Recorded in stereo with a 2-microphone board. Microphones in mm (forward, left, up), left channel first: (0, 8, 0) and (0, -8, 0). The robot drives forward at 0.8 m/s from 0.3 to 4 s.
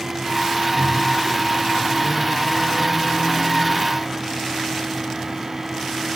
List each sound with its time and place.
0.8 s a microwave: 40° right (ahead or behind), 6.5 m; by 3.8 s 30° right (ahead or behind), 8.5 m